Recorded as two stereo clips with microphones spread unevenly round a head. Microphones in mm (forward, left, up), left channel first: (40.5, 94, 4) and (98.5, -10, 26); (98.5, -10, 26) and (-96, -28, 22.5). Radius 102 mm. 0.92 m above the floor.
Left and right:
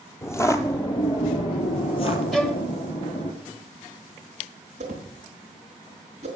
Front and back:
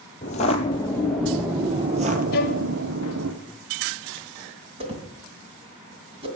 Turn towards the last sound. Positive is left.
turn(degrees=-115)